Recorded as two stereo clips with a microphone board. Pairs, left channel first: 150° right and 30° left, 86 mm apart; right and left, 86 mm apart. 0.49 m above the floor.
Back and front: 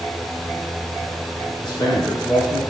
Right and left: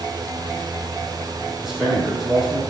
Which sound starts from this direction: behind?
A man speaking, at 1.6 s.